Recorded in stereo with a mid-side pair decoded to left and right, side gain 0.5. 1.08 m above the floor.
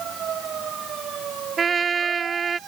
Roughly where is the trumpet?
Ahead right.